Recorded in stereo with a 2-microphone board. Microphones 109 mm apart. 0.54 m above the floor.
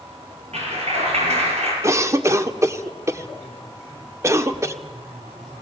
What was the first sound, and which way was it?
A clap, 85° right.